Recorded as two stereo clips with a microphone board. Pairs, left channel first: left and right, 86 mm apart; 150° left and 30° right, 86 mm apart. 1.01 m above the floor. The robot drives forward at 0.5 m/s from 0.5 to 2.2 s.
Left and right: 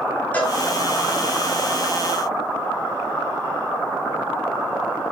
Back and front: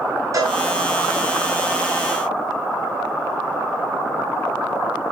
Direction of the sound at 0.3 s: 20° left.